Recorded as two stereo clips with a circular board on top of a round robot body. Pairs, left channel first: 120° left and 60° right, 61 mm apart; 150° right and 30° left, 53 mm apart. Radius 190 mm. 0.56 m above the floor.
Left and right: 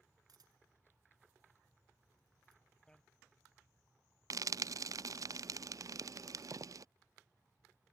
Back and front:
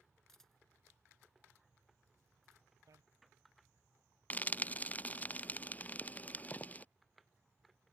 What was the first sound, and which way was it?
A camera shutter, 70° right.